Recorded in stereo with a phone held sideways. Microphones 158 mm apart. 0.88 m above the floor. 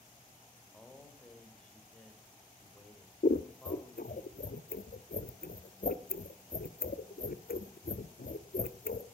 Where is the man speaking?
10° left (ahead or behind), 3.5 m.